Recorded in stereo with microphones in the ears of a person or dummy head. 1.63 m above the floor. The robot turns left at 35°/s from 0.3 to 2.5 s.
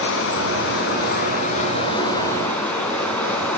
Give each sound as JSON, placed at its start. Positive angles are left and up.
{"t": 0.0, "sound": "running water", "azimuth_deg": 85, "distance_m": 3.5}